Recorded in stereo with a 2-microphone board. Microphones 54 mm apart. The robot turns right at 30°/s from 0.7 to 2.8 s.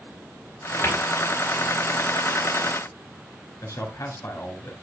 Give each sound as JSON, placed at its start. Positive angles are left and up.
{"t": 0.8, "sound": "a cupboard door", "side_deg": 45, "distance_m": 4.5}
{"t": 3.6, "sound": "a man speaking", "side_deg": 75, "distance_m": 7.5}